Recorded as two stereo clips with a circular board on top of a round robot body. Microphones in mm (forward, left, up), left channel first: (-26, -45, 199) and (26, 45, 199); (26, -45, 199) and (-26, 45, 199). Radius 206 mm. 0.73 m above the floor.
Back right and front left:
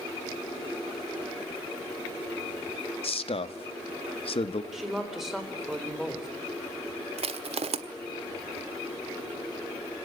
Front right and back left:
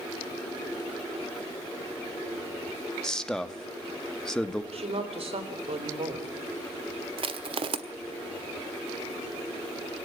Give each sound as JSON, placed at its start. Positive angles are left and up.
{"t": 3.0, "sound": "a man speaking", "azimuth_deg": -145, "distance_m": 1.6}
{"t": 4.7, "sound": "a woman speaking", "azimuth_deg": 145, "distance_m": 4.0}
{"t": 7.2, "sound": "crushing", "azimuth_deg": 85, "distance_m": 1.3}